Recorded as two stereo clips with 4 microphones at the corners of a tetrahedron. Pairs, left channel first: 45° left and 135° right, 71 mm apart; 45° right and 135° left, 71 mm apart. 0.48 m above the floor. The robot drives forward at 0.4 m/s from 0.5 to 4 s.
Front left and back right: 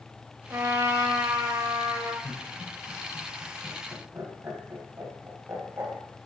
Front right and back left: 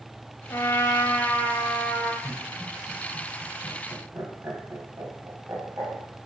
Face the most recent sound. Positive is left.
turn(degrees=180)